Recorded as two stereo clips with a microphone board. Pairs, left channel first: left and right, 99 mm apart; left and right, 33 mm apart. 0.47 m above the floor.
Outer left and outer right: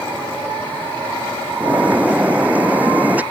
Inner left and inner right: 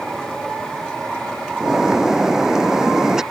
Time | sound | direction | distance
1.6 | a bird | 15° right (ahead or behind) | ?